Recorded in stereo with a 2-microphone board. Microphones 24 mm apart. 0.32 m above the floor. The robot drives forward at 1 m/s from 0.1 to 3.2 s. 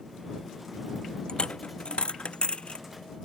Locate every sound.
1.3 s a dropped coin: 45° left (ahead or behind); by 2.9 s 55° left (ahead or behind)